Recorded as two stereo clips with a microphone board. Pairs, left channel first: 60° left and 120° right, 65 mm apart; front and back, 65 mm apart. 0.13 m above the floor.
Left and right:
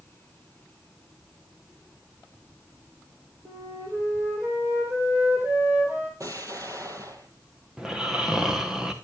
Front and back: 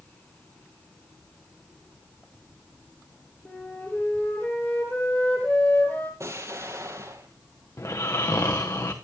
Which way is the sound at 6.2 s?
145° right.